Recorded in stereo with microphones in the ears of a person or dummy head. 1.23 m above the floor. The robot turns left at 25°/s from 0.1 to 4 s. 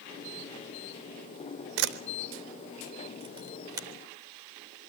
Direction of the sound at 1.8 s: 60° right (ahead or behind).